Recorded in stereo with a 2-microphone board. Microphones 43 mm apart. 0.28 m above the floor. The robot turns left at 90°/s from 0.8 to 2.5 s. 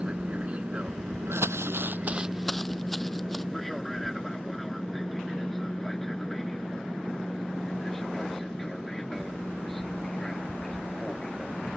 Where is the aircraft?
30° right (ahead or behind); by 11.8 s 10° left (ahead or behind).